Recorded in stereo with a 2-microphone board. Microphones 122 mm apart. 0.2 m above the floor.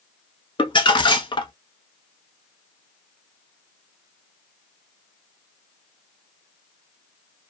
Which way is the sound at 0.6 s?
40° left (ahead or behind).